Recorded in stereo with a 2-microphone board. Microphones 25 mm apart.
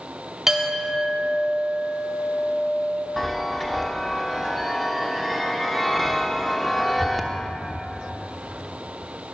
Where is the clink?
15° right (ahead or behind), 1.7 m.